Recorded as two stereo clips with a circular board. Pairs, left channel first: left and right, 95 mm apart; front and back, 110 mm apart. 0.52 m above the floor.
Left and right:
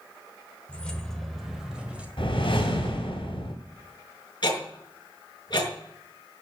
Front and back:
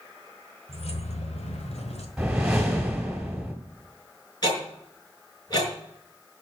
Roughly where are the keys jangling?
Ahead.